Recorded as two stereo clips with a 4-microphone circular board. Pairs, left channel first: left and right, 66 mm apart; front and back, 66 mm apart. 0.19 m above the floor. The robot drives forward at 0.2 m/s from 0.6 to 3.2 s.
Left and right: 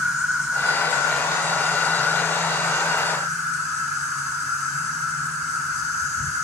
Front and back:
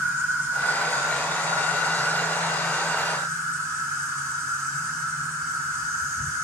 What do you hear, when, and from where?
0.0 s an insect: 150° right, 2.5 m; by 6.4 s 155° right, 2.5 m